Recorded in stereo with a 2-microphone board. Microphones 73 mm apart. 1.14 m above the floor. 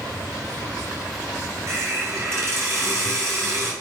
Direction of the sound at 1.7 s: 35° right (ahead or behind).